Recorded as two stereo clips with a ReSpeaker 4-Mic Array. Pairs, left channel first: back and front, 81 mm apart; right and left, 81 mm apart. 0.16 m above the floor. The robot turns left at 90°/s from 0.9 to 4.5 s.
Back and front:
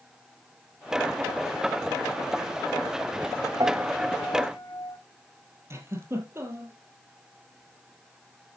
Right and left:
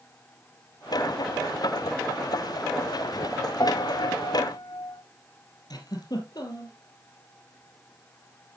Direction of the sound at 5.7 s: 55° right.